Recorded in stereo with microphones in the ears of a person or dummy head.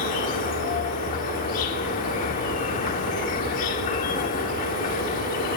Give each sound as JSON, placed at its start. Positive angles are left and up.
{"t": 0.0, "sound": "an insect", "side_deg": 45, "distance_m": 1.4}